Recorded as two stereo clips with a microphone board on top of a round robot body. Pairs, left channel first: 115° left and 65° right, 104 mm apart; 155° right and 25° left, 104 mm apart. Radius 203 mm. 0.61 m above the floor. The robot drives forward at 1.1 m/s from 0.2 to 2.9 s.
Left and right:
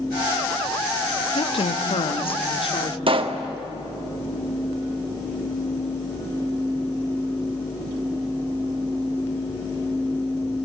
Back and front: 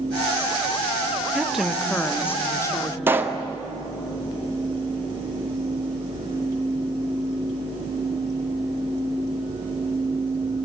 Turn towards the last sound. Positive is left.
turn(degrees=-45)